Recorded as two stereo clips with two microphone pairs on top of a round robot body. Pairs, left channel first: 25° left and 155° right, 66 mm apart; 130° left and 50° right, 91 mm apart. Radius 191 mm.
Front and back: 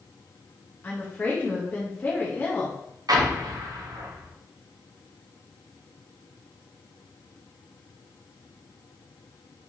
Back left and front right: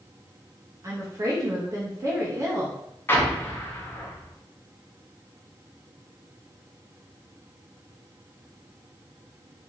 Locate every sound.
0.8 s a woman speaking: 30° right, 1.0 m
3.1 s an explosion: 160° right, 0.7 m